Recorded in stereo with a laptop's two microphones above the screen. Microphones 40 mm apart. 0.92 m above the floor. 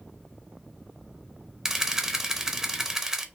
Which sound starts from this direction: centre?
A camera shutter, at 1.6 s.